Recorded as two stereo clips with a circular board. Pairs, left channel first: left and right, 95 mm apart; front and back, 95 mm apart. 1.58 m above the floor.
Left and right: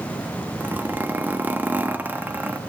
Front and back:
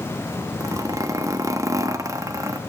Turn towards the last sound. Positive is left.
turn(degrees=-150)